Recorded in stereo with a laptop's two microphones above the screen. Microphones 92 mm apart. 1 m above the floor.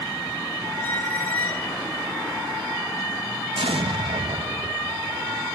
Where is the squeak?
20° left (ahead or behind).